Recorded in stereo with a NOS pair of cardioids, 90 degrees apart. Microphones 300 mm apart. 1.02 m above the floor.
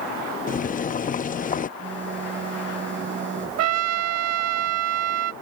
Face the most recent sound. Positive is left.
turn(degrees=-55)